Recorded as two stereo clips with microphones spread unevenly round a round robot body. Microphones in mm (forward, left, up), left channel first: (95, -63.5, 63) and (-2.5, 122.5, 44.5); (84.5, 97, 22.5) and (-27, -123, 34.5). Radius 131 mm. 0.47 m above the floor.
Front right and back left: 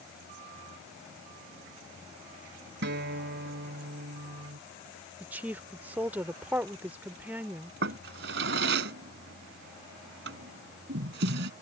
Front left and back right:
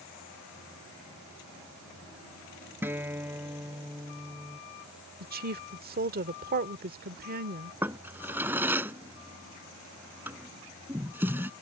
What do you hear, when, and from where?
2.8 s a guitar: 160° left
5.2 s a woman speaking: 165° right
7.8 s a drawer: 160° left